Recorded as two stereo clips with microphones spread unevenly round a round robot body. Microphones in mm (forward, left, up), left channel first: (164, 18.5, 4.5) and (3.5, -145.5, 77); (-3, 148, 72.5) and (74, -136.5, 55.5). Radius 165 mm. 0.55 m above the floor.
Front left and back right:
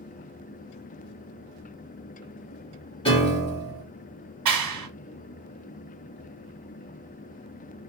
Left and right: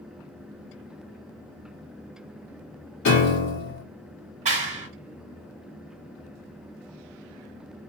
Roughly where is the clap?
Behind right.